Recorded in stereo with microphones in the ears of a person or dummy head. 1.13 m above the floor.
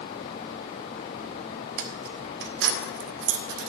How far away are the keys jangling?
About 1.2 m.